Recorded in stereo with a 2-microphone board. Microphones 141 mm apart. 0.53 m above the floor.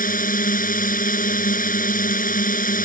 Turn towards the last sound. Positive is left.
turn(degrees=75)  # may be behind; listen again after turning